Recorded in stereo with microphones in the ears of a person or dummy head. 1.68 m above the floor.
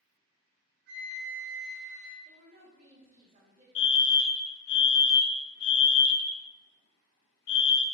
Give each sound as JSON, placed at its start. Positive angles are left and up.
{"t": 0.9, "sound": "a flute", "side_deg": -70, "distance_m": 3.0}
{"t": 2.2, "sound": "a woman speaking", "side_deg": -40, "distance_m": 2.5}
{"t": 3.8, "sound": "a fire alarm", "side_deg": 55, "distance_m": 0.7}